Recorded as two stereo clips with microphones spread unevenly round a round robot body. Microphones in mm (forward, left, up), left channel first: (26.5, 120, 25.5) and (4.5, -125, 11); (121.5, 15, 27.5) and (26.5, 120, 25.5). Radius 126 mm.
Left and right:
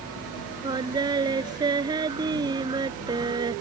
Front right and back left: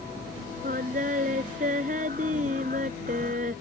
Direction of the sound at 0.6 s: 170° right.